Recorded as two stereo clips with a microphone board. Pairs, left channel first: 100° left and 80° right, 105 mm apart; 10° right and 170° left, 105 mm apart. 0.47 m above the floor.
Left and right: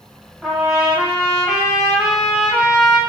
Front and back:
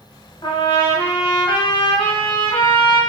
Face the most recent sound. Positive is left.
turn(degrees=0)